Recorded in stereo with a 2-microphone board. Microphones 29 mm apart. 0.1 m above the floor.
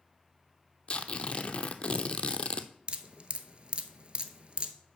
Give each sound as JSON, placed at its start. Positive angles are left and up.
{"t": 0.9, "sound": "tearing paper", "side_deg": 35, "distance_m": 0.6}
{"t": 2.9, "sound": "dripping", "side_deg": -35, "distance_m": 0.7}